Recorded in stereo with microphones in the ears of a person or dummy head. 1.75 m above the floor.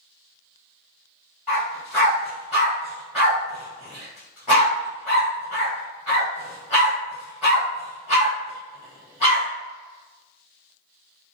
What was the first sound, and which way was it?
A dog barking, 5° right (ahead or behind).